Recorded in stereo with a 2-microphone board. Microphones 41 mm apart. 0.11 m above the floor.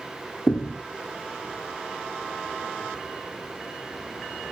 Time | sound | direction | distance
0.5 | a thud | 45° left (ahead or behind) | 3 m